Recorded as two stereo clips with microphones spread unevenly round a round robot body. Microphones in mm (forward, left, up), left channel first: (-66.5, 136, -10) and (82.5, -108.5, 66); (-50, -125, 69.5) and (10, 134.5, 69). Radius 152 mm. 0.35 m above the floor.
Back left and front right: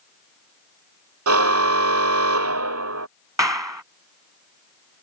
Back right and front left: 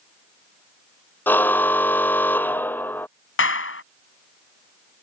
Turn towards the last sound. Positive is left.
turn(degrees=-140)